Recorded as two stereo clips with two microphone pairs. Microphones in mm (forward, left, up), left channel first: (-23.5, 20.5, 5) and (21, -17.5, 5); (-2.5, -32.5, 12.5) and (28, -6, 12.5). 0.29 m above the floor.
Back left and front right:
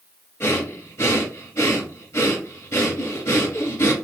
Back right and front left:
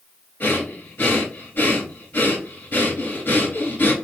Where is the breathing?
Straight behind, 1.1 m.